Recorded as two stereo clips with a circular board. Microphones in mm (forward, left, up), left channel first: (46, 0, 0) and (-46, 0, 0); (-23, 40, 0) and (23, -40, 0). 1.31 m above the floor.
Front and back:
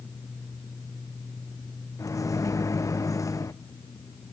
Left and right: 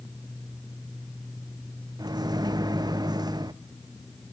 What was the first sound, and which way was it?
A microwave, 40° right.